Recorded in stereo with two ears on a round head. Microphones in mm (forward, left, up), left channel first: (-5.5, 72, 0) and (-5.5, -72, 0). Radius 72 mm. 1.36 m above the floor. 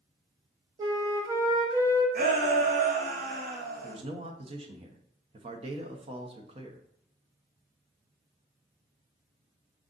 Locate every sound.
0.8 s a flute: 25° right (ahead or behind), 1.0 m
2.1 s a shout: 55° right (ahead or behind), 1.3 m
3.8 s a man speaking: 35° right (ahead or behind), 0.8 m